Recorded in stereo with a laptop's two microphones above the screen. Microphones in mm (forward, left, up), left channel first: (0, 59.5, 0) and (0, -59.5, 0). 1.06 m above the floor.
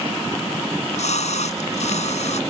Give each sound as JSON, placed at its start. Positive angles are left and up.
{"t": 0.7, "sound": "a splash", "side_deg": 80}